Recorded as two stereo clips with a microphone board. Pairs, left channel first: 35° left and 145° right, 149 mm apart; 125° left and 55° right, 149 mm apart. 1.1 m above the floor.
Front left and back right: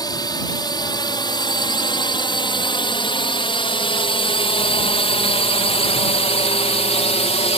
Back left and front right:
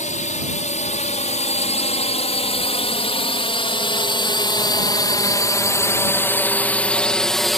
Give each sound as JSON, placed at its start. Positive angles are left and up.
{"t": 0.0, "sound": "a drone", "azimuth_deg": 95}